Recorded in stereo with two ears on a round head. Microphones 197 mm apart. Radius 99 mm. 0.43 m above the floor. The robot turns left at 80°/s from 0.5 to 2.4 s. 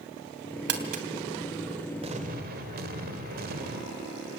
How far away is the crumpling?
About 3 m.